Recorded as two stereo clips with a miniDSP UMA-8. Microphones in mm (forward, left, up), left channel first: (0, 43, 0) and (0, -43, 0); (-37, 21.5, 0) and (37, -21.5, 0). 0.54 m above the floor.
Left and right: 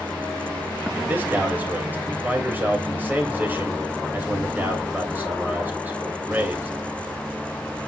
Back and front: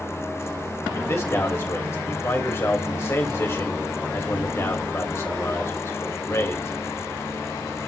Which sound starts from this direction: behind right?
A man speaking, at 0.9 s.